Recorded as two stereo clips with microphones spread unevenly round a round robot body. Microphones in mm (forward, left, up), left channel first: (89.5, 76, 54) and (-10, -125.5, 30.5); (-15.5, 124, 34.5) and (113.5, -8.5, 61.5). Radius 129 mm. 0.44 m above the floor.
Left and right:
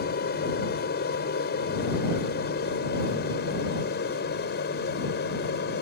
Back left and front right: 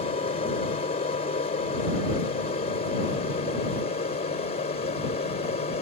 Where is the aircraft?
100° left.